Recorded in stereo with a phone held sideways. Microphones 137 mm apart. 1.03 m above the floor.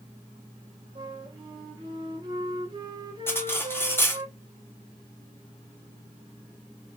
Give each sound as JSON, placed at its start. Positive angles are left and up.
{"t": 0.9, "sound": "a flute", "side_deg": -35, "distance_m": 1.4}
{"t": 3.3, "sound": "cutlery clinking", "side_deg": 15, "distance_m": 1.3}